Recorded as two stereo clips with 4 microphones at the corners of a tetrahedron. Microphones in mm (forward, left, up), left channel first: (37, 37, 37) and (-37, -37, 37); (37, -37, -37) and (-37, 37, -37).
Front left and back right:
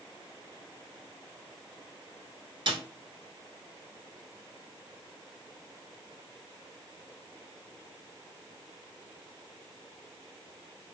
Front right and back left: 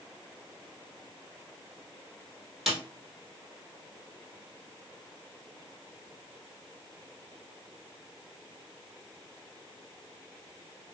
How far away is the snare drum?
About 1.2 m.